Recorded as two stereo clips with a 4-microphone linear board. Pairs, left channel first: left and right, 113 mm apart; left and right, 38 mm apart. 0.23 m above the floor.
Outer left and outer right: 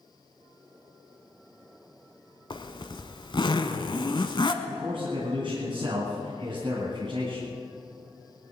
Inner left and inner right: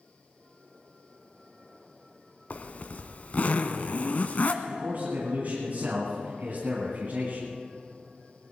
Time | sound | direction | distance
2.5 | a zipper | 45° left (ahead or behind) | 0.9 m
4.6 | a man speaking | 50° right (ahead or behind) | 2.5 m